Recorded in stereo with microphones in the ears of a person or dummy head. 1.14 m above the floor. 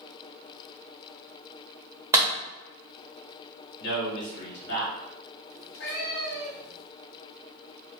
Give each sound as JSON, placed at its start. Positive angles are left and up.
{"t": 2.1, "sound": "a clap", "side_deg": -15, "distance_m": 1.1}
{"t": 3.8, "sound": "a man speaking", "side_deg": 65, "distance_m": 1.7}
{"t": 5.5, "sound": "a cat meowing", "side_deg": 55, "distance_m": 1.3}